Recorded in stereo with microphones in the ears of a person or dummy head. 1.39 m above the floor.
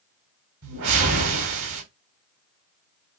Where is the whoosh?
80° right, 4 m.